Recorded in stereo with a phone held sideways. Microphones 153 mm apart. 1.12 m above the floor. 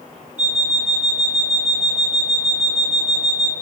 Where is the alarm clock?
50° right (ahead or behind), 0.8 m.